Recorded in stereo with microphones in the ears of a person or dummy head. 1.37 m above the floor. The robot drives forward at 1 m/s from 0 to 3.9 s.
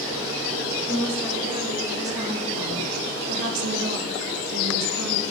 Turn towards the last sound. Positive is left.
turn(degrees=-60)  # may be behind; listen again after turning